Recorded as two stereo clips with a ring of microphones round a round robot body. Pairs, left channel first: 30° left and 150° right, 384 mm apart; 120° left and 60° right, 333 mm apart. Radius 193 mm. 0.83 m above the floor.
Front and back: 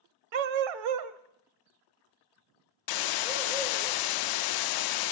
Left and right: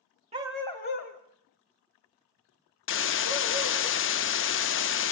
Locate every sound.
0.3 s a dog barking: 135° right, 1.2 m; by 3.9 s 125° left, 4.5 m
2.9 s a hiss: 65° left, 0.6 m